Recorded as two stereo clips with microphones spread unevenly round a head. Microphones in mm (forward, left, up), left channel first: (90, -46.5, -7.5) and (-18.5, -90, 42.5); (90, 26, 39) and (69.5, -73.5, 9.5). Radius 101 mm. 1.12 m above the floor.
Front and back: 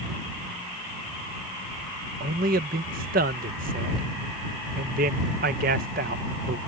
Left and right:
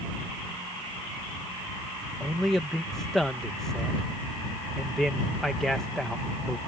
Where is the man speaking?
175° left.